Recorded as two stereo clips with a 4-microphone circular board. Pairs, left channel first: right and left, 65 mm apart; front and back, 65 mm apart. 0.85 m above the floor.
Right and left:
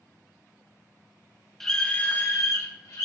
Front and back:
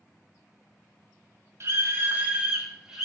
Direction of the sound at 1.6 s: 175° right.